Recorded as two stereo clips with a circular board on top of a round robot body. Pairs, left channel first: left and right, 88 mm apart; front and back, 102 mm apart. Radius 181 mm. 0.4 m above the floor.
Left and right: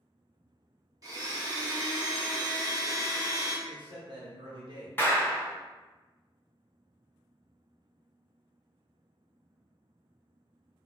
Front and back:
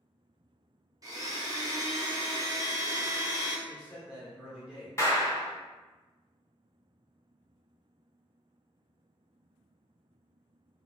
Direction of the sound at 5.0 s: 35° left.